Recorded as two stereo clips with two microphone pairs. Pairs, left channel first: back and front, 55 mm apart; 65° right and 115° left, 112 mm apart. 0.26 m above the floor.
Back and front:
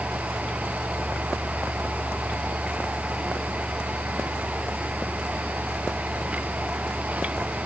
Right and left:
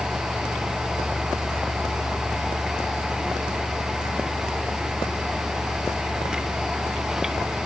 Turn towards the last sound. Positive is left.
No sound to turn to.